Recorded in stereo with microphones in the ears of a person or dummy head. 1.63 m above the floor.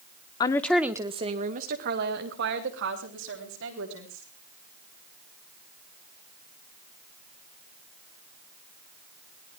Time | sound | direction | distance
0.4 | a woman speaking | 25° left (ahead or behind) | 1.1 m